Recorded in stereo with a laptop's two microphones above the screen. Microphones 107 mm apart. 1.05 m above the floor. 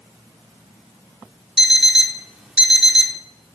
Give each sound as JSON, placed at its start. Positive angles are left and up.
{"t": 1.6, "sound": "an alarm clock", "side_deg": -5, "distance_m": 0.8}